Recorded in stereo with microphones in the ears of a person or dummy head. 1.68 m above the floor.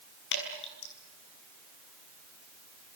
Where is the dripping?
80° left, 6.5 m.